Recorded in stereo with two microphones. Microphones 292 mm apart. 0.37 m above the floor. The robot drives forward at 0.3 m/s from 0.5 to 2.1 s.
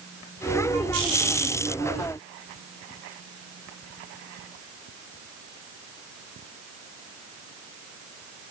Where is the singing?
I don't hear singing.